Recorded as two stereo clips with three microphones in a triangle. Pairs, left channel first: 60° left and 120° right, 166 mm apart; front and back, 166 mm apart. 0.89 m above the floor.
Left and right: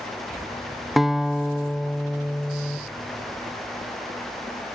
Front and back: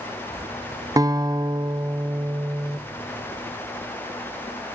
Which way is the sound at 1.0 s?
155° left.